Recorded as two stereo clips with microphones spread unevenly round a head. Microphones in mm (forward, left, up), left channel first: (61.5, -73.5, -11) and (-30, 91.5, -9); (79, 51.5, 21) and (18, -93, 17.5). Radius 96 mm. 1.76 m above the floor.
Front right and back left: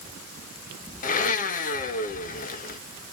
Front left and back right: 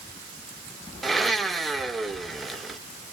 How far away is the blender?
About 1.5 m.